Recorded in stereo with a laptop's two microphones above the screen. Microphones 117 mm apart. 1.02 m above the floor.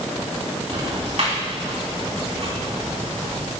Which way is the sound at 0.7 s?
65° right (ahead or behind).